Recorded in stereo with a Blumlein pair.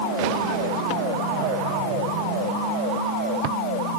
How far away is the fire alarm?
No fire alarm in this recording.